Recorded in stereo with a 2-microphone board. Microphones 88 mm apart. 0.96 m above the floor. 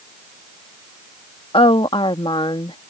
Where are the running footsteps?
No running footsteps in this recording.